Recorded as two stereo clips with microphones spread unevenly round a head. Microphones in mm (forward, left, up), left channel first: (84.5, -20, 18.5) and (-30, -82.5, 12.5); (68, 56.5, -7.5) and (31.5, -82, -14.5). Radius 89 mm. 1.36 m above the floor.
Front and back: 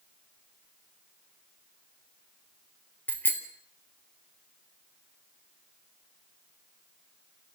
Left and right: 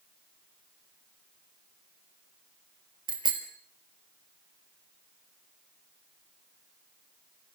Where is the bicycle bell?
45° right, 4 m.